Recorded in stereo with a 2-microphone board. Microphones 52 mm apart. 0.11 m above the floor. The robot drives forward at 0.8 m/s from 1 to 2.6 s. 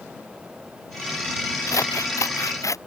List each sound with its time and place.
1.7 s scissors: 80° left; by 2.8 s 85° left